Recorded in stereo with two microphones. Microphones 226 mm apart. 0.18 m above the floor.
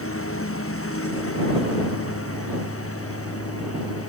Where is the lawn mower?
70° left (ahead or behind); by 4.1 s 80° left.